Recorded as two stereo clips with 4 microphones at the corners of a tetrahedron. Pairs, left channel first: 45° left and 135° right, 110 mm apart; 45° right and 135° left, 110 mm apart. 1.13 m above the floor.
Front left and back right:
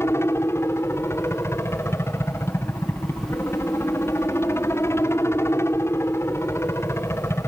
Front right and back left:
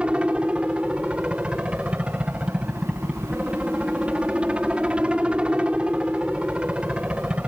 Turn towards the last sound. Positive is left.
turn(degrees=65)